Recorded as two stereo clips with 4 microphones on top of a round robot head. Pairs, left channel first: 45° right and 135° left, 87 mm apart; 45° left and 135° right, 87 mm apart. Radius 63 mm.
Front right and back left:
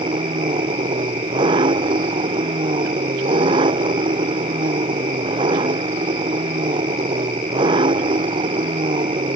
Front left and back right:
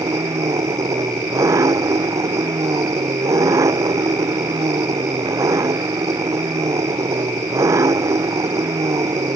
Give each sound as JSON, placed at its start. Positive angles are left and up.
{"t": 0.0, "sound": "an engine running", "azimuth_deg": 170}